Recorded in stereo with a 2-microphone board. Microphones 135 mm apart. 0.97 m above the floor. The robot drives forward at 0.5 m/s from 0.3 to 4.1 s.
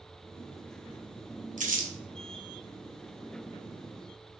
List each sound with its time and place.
1.6 s crumpling: 70° right (ahead or behind), 0.8 m; by 1.9 s 80° right, 0.8 m